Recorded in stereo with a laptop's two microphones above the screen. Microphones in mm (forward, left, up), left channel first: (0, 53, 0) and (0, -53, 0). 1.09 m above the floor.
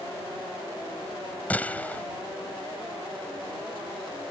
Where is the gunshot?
15° left (ahead or behind).